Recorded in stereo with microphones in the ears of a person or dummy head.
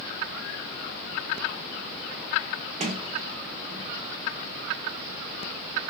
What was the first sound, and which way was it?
A sliding door, 35° right (ahead or behind).